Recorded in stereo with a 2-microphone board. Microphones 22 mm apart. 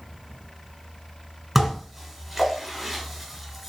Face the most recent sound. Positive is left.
turn(degrees=-5)  # may be behind; listen again after turning